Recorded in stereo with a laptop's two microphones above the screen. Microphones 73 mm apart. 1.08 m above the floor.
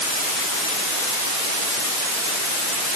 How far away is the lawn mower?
No lawn mower in this recording.